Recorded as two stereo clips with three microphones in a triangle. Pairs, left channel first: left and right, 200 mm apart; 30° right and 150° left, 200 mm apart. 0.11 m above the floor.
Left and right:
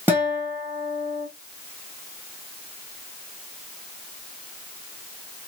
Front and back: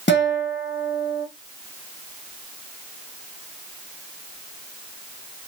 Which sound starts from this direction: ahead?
A guitar, at 0.1 s.